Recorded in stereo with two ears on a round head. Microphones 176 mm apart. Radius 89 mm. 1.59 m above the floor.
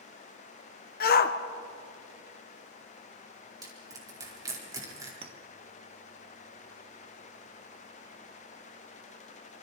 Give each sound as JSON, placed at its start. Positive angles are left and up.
{"t": 1.0, "sound": "a shout", "side_deg": 50, "distance_m": 1.5}
{"t": 3.6, "sound": "crushing", "side_deg": -20, "distance_m": 4.5}
{"t": 5.2, "sound": "a clink", "side_deg": -30, "distance_m": 1.4}